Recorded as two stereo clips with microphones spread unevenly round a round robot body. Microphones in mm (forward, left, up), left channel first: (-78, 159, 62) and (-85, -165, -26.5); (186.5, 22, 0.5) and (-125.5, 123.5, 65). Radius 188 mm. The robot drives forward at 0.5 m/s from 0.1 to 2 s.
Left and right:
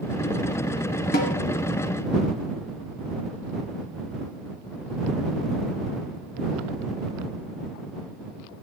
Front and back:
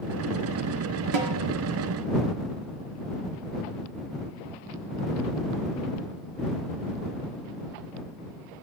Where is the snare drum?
155° left, 1.8 m.